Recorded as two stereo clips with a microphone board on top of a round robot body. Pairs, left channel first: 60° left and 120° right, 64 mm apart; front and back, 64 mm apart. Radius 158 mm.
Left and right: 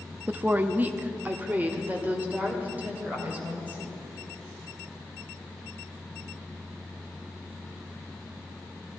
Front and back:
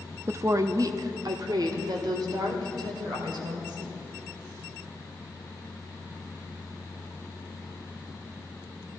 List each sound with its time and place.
0.3 s a woman speaking: 170° right, 0.8 m; by 4.0 s 170° left, 3 m